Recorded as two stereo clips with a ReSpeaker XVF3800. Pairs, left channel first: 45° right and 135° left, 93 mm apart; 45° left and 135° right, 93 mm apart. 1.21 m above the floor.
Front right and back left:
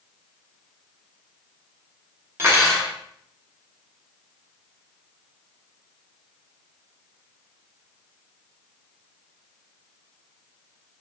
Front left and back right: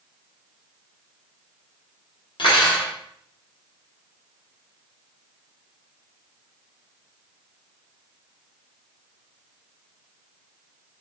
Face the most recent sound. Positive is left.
turn(degrees=70)